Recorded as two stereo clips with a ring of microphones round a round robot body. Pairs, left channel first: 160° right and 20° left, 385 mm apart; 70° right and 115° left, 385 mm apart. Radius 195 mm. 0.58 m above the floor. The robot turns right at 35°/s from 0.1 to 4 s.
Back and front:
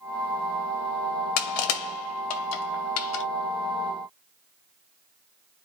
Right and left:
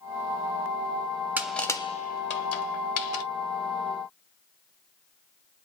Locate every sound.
1.4 s crushing: 160° right, 1.1 m; by 3.2 s 95° right, 1.1 m